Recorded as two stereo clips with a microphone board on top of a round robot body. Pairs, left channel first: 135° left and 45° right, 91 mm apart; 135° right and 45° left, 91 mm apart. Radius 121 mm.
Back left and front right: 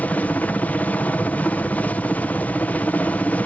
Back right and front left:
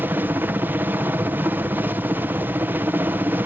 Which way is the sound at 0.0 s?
85° left.